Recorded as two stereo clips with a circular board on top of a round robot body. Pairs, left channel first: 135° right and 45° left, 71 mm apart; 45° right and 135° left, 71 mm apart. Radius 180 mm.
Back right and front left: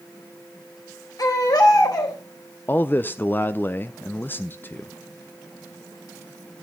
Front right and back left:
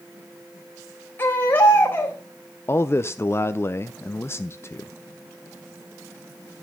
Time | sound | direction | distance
1.2 | a baby crying | 105° right | 2.5 m
2.7 | a man speaking | 85° right | 0.6 m